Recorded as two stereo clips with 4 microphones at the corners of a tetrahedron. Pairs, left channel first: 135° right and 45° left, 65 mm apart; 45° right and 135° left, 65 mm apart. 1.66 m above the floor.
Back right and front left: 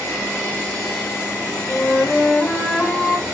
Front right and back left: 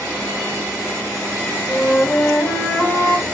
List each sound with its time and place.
1.7 s a flute: 75° right, 1.5 m